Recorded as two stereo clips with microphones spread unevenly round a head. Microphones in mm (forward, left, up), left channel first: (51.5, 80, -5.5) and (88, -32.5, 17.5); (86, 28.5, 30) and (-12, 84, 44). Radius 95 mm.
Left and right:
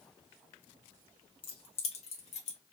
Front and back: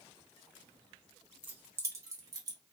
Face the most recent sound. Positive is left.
turn(degrees=115)